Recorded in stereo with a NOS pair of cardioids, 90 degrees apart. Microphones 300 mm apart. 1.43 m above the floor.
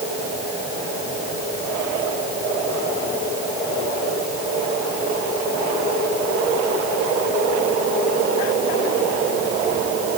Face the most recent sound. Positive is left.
No sound to turn to.